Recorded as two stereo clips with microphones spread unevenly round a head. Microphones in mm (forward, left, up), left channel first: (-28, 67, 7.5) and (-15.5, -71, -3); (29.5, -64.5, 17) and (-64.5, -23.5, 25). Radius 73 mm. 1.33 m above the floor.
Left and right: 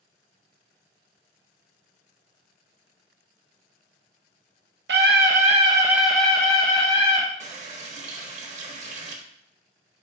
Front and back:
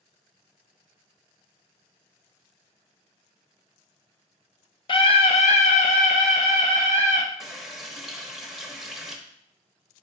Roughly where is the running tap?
Behind right.